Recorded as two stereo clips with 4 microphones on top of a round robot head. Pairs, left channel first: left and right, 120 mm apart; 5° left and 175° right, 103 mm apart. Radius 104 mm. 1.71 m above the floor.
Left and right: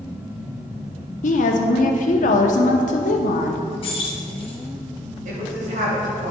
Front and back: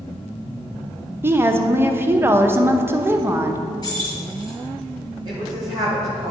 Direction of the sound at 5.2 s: 115° right.